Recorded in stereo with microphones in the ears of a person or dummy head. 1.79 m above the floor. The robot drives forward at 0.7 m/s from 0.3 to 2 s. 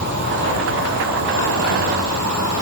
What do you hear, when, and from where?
0.0 s an insect: 60° right (ahead or behind), 2.5 m; by 2.6 s 70° right (ahead or behind), 2.5 m